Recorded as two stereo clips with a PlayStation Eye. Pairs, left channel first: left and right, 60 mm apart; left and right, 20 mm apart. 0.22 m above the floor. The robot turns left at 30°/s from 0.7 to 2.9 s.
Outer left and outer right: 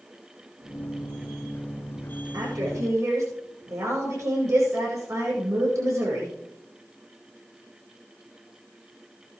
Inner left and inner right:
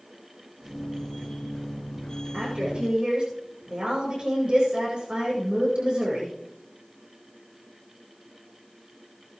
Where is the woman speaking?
70° right (ahead or behind), 8.5 m; by 6.3 s 55° right (ahead or behind), 8.5 m.